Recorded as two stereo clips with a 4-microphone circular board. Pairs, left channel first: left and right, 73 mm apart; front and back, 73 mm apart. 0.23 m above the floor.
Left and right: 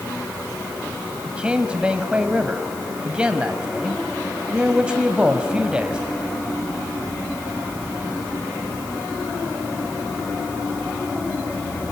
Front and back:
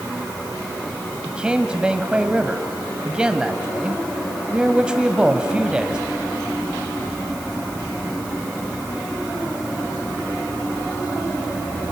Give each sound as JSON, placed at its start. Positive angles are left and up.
{"t": 1.2, "sound": "a man speaking", "azimuth_deg": -135, "distance_m": 1.1}